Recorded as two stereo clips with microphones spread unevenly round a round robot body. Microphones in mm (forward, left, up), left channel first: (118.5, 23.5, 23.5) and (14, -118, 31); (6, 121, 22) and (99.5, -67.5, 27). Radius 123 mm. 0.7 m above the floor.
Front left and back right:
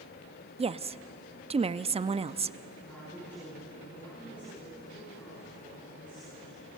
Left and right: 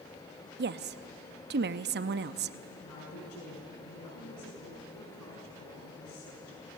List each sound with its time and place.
0.6 s a woman speaking: 80° right, 0.8 m
2.8 s a woman speaking: 135° left, 7.5 m